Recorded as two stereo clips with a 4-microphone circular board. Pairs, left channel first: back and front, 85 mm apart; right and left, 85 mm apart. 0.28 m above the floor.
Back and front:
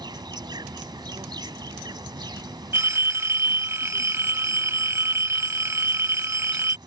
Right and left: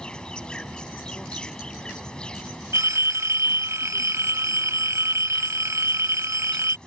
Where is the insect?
10° right.